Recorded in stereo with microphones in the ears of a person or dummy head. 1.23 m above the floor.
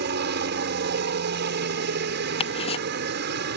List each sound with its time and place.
0.0 s a helicopter: 55° right (ahead or behind)
2.4 s ticking: 30° left (ahead or behind)